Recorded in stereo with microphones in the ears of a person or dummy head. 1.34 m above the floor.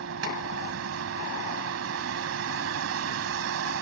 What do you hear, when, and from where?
0.0 s a vehicle: 80° right